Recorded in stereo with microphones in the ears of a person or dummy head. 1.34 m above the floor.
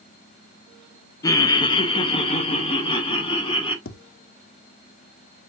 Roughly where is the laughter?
Centre.